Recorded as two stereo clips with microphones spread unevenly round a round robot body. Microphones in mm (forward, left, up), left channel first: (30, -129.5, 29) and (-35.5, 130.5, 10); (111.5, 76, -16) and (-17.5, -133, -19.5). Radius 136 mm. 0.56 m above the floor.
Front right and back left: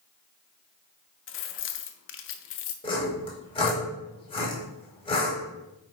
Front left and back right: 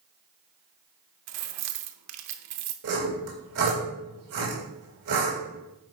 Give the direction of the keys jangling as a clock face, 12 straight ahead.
4 o'clock.